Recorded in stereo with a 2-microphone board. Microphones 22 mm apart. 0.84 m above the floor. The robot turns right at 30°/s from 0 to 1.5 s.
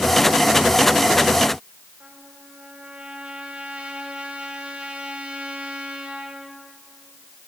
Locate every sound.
2.0 s a trumpet: 80° right, 2.5 m